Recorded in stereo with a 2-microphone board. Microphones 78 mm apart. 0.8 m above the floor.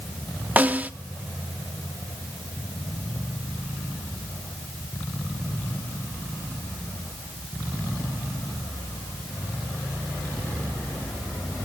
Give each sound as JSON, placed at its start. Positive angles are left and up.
{"t": 0.6, "sound": "a snare drum", "side_deg": -20, "distance_m": 0.6}